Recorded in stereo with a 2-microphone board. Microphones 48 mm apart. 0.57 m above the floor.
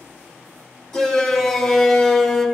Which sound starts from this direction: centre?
A shout, at 0.9 s.